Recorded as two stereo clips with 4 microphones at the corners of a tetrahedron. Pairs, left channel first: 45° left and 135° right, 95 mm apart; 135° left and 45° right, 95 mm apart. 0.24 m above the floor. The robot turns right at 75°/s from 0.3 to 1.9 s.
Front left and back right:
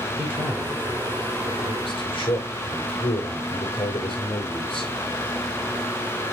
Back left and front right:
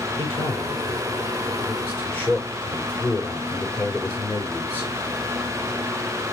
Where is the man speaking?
60° right, 5.5 m; by 4.9 s 60° left, 5.5 m.